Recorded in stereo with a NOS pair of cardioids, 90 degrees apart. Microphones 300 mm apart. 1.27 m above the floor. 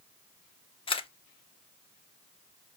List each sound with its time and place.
0.9 s a camera shutter: 20° left, 0.7 m